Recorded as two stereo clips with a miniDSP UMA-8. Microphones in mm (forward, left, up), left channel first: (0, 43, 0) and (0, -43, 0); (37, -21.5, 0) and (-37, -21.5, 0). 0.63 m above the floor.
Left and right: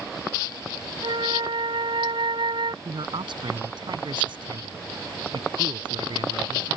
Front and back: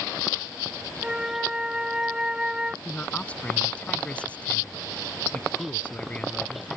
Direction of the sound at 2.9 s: 75° right.